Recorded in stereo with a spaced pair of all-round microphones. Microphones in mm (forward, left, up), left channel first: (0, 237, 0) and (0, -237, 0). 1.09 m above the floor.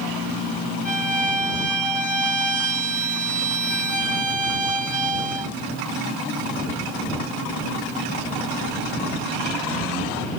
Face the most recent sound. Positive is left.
turn(degrees=60)  # may be behind; listen again after turning